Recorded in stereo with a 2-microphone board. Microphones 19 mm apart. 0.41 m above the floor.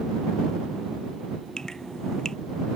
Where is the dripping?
30° left (ahead or behind).